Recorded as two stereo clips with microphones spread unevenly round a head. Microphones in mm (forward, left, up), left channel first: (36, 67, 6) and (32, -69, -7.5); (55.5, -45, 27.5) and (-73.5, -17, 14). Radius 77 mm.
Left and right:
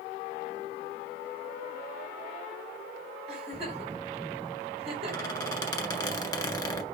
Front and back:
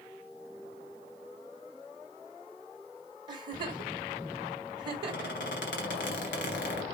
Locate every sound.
3.3 s a giggle: 140° right, 2.5 m
5.0 s a squeak: 25° left, 1.7 m